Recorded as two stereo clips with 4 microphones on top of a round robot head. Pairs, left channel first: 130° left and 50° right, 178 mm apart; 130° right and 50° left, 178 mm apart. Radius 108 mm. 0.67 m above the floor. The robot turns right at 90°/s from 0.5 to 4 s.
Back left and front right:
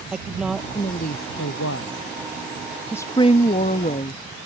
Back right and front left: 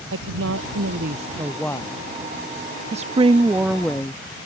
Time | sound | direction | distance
0.1 | a woman speaking | 40° left | ?
2.9 | a woman speaking | 60° left | ?